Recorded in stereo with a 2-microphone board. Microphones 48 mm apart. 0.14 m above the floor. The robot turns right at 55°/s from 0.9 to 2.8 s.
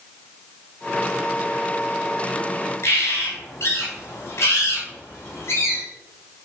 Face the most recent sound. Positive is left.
turn(degrees=60)  # may be behind; listen again after turning